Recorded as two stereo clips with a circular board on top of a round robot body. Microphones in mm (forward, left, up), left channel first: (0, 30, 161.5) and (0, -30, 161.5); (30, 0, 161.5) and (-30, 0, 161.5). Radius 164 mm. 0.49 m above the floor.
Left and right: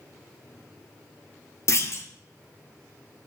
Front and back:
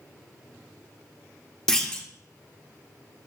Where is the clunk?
80° left, 1.5 m.